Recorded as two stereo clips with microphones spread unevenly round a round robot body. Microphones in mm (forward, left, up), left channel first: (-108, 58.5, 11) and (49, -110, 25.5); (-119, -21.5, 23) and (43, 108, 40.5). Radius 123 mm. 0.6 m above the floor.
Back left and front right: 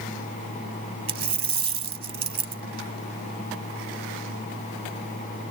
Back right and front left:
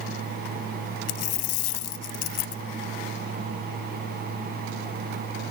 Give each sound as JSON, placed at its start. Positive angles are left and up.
{"t": 1.1, "sound": "a dropped coin", "azimuth_deg": -115}